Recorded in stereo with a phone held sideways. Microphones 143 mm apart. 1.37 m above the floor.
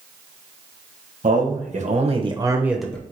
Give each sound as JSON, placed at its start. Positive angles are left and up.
{"t": 1.2, "sound": "a man speaking", "side_deg": -70, "distance_m": 1.0}